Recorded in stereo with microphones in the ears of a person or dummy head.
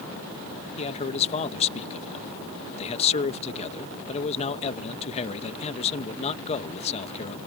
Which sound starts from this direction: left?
A man speaking, at 0.8 s.